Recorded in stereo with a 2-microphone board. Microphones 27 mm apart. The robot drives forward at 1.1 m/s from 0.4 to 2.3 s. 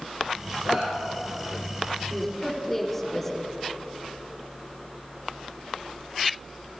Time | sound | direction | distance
0.7 | a shout | 70° right (ahead or behind) | 6 m
2.1 | a woman speaking | 5° left (ahead or behind) | 4.5 m